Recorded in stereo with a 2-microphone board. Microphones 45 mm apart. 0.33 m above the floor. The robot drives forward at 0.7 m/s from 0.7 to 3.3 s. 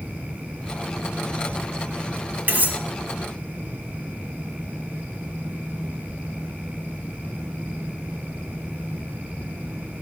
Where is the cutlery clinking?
40° right (ahead or behind), 1.7 m.